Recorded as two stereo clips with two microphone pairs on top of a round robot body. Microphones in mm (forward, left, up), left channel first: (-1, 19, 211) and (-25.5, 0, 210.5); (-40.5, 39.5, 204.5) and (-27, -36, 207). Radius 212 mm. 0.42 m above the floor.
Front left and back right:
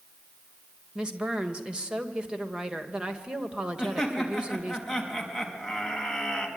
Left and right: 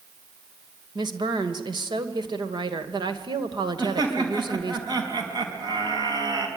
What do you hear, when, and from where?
0.9 s a woman speaking: 85° right, 2.5 m
3.8 s laughter: 50° right, 5 m